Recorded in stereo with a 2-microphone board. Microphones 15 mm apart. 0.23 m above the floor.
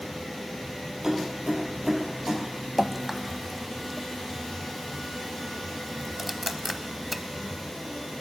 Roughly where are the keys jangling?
Right.